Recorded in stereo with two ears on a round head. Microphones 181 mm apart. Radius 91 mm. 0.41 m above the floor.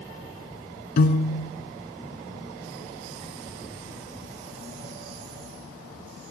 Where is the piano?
50° left (ahead or behind), 0.9 m.